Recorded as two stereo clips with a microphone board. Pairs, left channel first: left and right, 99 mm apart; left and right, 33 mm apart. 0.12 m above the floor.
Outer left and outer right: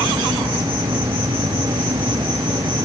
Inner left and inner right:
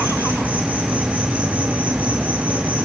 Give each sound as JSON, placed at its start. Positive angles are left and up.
{"t": 0.0, "sound": "an insect", "side_deg": -60, "distance_m": 5.5}